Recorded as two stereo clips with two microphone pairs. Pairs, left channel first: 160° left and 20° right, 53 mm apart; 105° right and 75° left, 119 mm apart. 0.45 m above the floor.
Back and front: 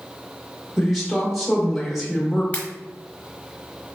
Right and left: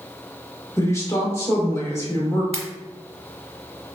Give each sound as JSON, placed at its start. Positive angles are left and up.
{"t": 0.8, "sound": "a woman speaking", "azimuth_deg": -105, "distance_m": 0.8}
{"t": 2.5, "sound": "a pop", "azimuth_deg": 105, "distance_m": 0.8}